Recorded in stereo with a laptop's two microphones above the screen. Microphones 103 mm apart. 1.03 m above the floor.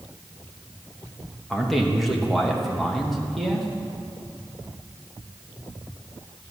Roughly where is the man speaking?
Centre.